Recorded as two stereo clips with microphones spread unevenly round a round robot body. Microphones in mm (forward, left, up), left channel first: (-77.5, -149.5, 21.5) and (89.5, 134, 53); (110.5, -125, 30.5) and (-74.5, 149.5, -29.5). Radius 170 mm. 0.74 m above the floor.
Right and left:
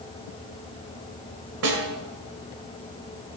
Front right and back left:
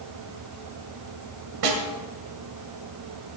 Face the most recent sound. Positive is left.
turn(degrees=105)